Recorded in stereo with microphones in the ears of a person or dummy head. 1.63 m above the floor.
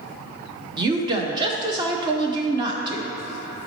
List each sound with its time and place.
0.8 s a woman speaking: 25° right (ahead or behind), 0.7 m